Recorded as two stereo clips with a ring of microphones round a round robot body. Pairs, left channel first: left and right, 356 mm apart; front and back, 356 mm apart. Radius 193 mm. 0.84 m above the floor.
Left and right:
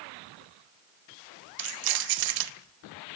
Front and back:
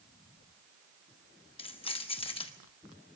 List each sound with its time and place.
1.6 s keys jangling: 75° right, 0.8 m